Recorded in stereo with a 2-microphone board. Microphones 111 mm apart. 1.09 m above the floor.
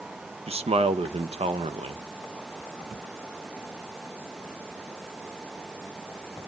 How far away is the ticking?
No ticking in this recording.